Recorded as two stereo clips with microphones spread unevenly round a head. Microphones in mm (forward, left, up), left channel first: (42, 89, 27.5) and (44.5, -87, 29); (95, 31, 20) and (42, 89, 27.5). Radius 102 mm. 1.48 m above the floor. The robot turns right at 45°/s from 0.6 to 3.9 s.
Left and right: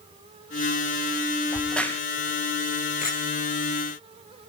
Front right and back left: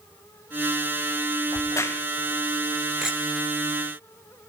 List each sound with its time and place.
1.5 s a crack: 5° right, 2 m; by 2.0 s 15° left, 2 m
3.0 s a clink: 45° left, 3 m; by 3.2 s 55° left, 3 m